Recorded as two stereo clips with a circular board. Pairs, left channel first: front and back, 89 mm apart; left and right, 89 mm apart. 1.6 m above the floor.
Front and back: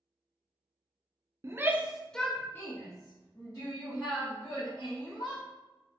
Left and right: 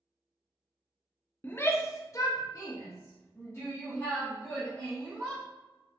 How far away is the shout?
About 0.5 m.